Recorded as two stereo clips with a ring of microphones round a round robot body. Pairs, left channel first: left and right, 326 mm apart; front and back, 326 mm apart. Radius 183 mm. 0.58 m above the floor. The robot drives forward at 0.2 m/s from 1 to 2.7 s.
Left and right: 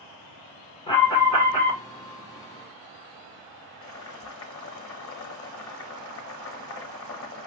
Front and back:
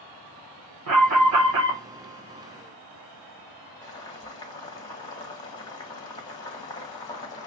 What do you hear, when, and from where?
0.9 s an alarm: 165° left, 1.5 m
3.8 s boiling: 70° left, 1.2 m